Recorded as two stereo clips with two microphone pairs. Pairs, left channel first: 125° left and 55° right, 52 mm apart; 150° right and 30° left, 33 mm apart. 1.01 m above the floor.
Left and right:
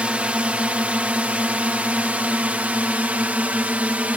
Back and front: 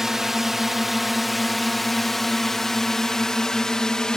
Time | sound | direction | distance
0.0 | a drone | 30° right | ?